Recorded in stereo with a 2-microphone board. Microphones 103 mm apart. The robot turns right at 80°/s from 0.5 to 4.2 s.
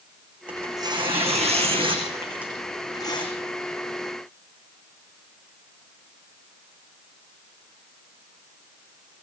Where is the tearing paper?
165° right, 8.5 m; by 3.3 s 60° left, 8.5 m.